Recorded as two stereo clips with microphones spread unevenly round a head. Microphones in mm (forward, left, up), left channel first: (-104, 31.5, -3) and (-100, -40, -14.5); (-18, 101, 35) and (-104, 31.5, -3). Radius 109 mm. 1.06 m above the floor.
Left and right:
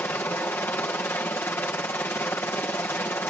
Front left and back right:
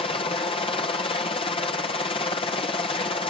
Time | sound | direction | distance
0.0 | a helicopter | 50° left | ?